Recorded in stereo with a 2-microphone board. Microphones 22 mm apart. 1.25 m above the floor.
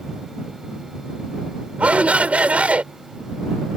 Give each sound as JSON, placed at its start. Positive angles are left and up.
{"t": 1.8, "sound": "a shout", "side_deg": -75}